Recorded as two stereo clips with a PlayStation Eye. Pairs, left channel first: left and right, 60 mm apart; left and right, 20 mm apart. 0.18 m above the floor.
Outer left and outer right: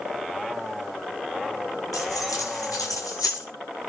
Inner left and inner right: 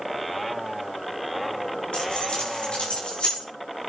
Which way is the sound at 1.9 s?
80° left.